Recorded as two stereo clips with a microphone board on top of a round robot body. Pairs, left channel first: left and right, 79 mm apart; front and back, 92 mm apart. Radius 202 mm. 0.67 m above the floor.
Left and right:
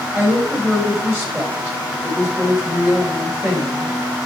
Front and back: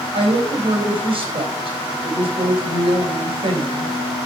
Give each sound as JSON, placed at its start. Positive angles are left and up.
{"t": 0.1, "sound": "a woman speaking", "azimuth_deg": -155, "distance_m": 3.5}